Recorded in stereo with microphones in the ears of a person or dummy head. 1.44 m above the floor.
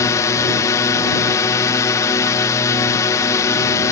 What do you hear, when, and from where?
0.0 s a drone: 15° left (ahead or behind)